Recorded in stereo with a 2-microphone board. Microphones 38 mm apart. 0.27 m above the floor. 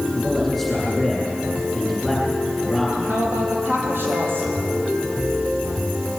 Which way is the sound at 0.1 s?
Centre (ahead or behind).